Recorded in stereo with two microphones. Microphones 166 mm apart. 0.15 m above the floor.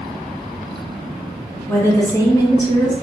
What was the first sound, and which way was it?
A woman speaking, 15° left (ahead or behind).